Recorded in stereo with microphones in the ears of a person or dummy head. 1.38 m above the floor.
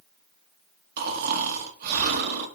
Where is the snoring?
60° right (ahead or behind), 1.9 m.